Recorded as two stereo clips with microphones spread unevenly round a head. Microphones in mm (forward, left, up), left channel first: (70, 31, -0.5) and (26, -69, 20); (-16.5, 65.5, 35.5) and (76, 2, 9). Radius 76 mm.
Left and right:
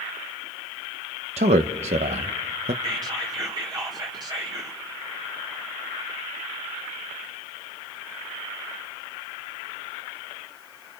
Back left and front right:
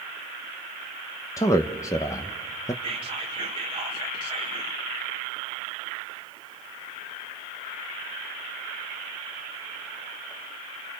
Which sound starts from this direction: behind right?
A man speaking, at 1.4 s.